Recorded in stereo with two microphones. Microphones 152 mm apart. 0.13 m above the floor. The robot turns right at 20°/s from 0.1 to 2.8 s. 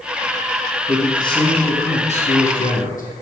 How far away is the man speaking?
About 6 m.